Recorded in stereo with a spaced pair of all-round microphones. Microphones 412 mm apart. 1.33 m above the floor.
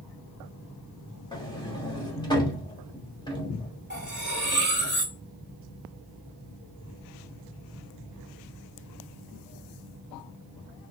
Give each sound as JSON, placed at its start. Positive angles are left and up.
{"t": 1.3, "sound": "a sliding door", "side_deg": 10, "distance_m": 1.6}
{"t": 3.9, "sound": "cutlery clinking", "side_deg": -25, "distance_m": 2.0}